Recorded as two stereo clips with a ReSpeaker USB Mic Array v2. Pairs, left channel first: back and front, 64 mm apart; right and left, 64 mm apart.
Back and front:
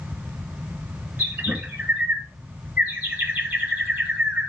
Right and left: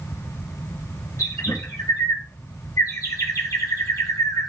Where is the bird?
60° right, 3 m.